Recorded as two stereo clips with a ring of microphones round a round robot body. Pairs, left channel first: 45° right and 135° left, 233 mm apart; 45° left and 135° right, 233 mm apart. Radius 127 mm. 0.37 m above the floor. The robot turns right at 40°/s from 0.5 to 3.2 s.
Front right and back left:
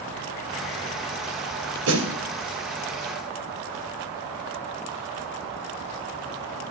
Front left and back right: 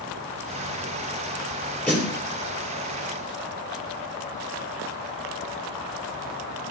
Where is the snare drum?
130° left, 3 m; by 2.1 s 140° left, 3 m.